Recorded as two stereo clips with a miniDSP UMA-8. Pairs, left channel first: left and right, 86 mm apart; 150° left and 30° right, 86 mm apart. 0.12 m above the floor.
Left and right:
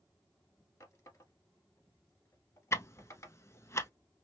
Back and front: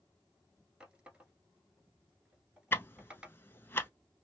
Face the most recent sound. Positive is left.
turn(degrees=115)